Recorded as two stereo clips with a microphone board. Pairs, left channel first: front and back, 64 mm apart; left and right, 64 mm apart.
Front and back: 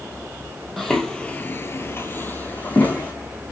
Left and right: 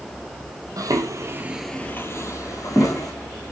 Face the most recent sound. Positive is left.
turn(degrees=65)